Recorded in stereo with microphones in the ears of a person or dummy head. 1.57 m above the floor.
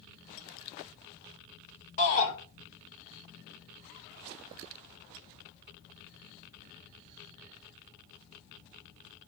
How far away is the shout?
About 4.5 m.